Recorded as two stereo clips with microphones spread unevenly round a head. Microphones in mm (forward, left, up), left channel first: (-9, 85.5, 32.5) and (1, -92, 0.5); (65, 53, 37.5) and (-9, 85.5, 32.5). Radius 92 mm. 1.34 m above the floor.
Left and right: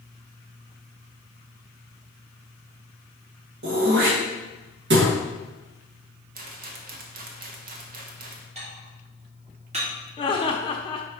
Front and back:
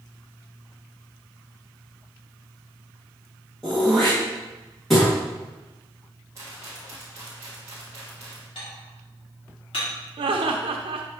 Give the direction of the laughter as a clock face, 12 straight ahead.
7 o'clock.